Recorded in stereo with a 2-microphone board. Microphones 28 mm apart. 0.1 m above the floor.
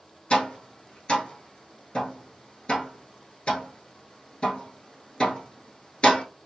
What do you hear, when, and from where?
0.3 s tapping: 40° left (ahead or behind), 1.1 m